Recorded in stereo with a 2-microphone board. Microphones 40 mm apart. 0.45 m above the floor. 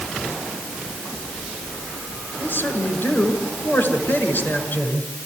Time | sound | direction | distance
2.4 | a man speaking | 60° left (ahead or behind) | 6 m